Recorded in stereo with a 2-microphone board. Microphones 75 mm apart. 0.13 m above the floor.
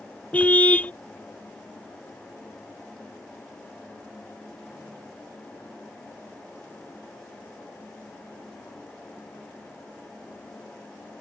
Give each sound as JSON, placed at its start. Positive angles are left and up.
{"t": 0.3, "sound": "a car horn", "side_deg": 20}